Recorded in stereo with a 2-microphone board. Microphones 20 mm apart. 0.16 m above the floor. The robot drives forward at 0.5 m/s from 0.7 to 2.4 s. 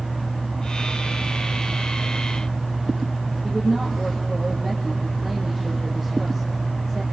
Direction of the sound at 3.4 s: 20° right (ahead or behind).